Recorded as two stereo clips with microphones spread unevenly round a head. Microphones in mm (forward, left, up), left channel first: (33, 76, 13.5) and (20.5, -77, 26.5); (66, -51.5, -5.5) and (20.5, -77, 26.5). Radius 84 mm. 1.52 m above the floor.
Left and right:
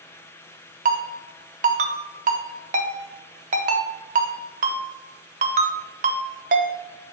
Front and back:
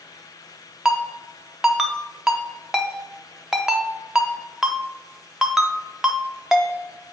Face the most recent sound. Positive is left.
turn(degrees=-110)